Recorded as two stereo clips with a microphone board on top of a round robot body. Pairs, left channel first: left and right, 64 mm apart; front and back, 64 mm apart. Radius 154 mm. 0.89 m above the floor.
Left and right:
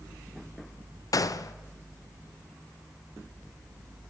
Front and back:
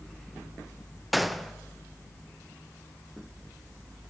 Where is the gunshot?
90° left, 0.7 m.